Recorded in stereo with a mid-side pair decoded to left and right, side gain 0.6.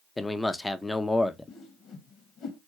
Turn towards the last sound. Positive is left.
turn(degrees=55)